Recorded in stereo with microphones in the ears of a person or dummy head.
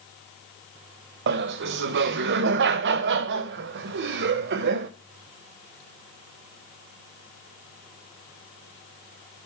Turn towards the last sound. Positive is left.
turn(degrees=-70)  # may be behind; listen again after turning